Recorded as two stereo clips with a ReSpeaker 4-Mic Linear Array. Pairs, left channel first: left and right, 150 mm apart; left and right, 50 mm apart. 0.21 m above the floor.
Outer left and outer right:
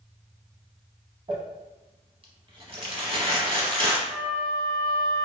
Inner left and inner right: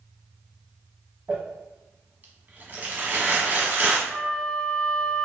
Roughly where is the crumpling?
Right.